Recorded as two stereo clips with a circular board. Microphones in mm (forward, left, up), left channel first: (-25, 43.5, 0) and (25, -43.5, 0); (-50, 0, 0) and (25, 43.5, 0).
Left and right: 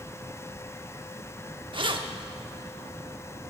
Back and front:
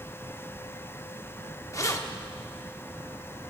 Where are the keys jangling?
95° right, 0.9 m.